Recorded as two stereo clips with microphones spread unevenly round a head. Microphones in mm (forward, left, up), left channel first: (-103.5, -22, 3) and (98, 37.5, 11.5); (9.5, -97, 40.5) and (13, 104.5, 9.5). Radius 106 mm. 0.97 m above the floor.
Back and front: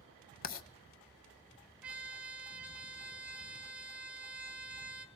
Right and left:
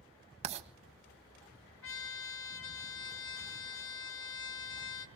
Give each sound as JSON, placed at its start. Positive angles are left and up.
{"t": 0.4, "sound": "writing", "azimuth_deg": 150, "distance_m": 1.3}
{"t": 1.8, "sound": "a trumpet", "azimuth_deg": -65, "distance_m": 1.5}